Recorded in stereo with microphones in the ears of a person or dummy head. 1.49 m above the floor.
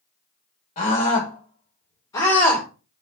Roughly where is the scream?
Left.